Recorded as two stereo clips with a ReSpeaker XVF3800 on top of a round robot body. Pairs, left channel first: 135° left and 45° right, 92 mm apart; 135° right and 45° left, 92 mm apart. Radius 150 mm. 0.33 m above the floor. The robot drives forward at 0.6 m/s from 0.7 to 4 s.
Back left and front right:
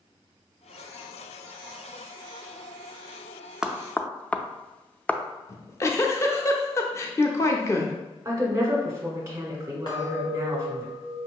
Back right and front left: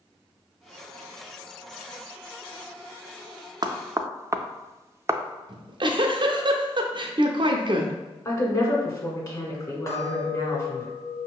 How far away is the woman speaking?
About 1.7 m.